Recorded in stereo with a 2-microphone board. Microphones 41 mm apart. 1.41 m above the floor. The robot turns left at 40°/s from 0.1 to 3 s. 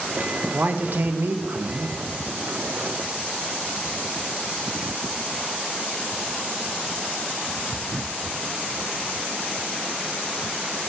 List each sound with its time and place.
0.5 s a man speaking: 45° right, 0.6 m; by 2.0 s 100° right, 0.6 m